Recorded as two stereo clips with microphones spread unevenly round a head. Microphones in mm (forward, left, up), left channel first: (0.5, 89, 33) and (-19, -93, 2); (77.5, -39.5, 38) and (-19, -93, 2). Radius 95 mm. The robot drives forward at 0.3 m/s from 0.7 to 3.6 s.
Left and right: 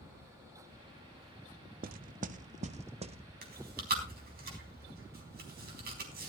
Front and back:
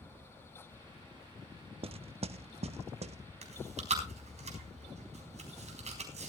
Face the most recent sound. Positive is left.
turn(degrees=-135)